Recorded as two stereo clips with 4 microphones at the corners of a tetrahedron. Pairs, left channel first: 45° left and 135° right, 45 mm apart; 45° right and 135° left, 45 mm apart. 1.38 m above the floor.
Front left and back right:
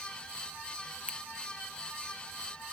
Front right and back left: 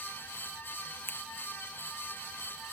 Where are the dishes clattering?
No dishes clattering in this recording.